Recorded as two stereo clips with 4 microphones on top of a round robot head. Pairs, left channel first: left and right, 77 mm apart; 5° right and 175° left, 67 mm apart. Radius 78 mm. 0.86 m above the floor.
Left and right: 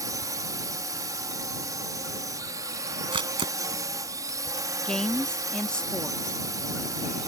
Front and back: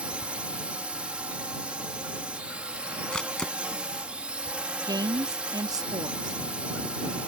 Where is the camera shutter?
85° right.